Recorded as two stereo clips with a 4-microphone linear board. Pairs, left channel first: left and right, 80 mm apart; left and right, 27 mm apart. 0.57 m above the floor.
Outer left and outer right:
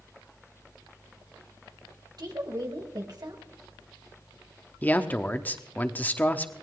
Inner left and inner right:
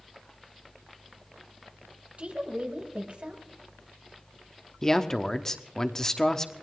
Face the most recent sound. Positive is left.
turn(degrees=20)  # may be behind; listen again after turning